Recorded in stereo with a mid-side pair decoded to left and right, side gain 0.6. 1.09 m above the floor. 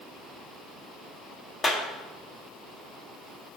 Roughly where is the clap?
Ahead left.